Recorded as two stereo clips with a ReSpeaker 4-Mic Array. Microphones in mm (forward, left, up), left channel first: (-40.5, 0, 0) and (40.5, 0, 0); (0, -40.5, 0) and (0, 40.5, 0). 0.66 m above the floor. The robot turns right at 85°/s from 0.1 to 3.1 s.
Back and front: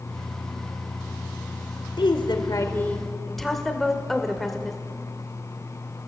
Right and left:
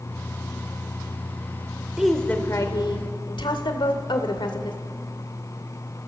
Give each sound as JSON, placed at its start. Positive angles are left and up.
{"t": 2.0, "sound": "a woman speaking", "azimuth_deg": 170, "distance_m": 1.8}